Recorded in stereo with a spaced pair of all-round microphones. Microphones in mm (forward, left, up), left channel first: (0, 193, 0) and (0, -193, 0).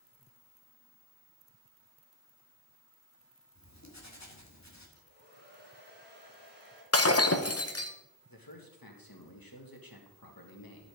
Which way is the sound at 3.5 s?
45° left (ahead or behind).